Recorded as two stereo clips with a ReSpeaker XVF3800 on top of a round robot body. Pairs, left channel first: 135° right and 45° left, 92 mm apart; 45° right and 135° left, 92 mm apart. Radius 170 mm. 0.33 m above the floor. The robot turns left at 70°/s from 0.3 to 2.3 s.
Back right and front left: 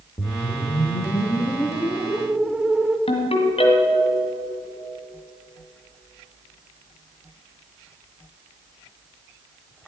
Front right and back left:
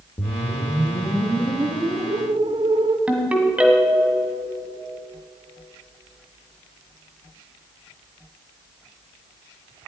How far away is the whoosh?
About 1.1 m.